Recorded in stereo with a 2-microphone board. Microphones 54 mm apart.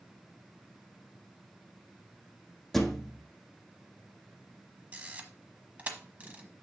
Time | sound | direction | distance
2.7 | a thud | 5° left (ahead or behind) | 1.0 m
4.9 | a camera shutter | 30° right (ahead or behind) | 1.1 m